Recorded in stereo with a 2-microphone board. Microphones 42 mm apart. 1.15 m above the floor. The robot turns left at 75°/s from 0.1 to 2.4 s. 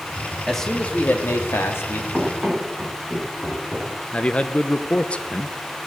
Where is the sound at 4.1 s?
25° left (ahead or behind), 0.9 m.